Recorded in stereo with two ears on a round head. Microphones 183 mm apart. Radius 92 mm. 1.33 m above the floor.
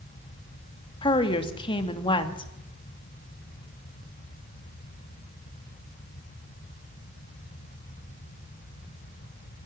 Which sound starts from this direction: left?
A woman speaking, at 1.0 s.